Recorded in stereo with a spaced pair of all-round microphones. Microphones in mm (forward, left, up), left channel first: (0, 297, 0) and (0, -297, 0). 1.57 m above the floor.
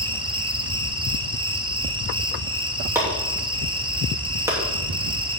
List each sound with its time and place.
0.0 s an insect: 10° right (ahead or behind), 0.9 m
3.0 s chopping: 5° right (ahead or behind), 2.5 m